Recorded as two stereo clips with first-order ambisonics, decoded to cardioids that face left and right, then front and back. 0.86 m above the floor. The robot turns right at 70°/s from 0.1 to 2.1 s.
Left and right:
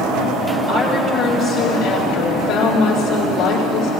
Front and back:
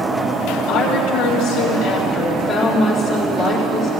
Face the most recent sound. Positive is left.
turn(degrees=80)